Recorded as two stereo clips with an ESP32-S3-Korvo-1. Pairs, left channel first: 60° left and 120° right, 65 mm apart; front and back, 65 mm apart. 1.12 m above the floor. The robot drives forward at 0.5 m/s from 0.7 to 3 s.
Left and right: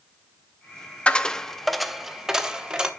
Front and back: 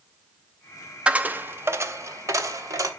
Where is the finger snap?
I don't hear a finger snap.